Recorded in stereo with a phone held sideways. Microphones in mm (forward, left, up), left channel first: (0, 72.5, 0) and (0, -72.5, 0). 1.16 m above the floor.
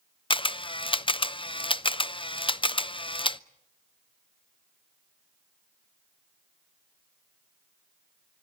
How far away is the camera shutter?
About 0.5 m.